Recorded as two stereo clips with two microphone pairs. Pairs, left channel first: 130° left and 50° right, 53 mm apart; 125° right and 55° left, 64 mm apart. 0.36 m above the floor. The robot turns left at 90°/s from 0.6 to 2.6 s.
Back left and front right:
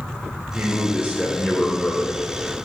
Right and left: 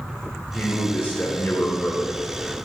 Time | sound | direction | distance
0.5 | a man speaking | 55° right | 1.2 m